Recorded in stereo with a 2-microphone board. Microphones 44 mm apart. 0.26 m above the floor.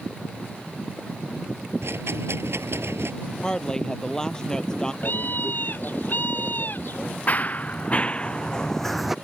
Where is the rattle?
75° right (ahead or behind).